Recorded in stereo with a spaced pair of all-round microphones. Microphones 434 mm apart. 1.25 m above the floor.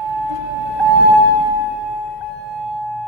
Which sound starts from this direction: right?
A vehicle, at 0.0 s.